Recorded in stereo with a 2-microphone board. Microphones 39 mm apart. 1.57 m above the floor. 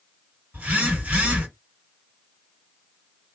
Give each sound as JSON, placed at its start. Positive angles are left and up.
{"t": 0.5, "sound": "a phone buzzing", "side_deg": -50, "distance_m": 2.0}